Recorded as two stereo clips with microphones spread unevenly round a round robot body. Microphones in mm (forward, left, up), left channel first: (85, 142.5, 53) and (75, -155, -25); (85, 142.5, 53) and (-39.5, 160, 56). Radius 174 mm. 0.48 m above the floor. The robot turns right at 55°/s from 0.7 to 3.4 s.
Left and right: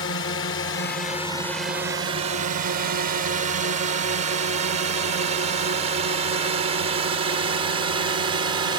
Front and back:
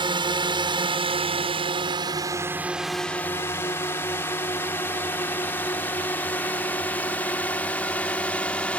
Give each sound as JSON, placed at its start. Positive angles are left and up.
{"t": 0.0, "sound": "a drone", "azimuth_deg": 145}